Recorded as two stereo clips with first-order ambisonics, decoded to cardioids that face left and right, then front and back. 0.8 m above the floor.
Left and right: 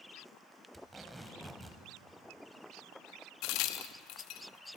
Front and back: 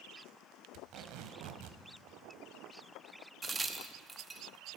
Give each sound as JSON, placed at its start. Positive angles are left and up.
{"t": 0.7, "sound": "tape being pulled", "azimuth_deg": -170, "distance_m": 1.0}
{"t": 3.4, "sound": "a crack", "azimuth_deg": 105, "distance_m": 0.7}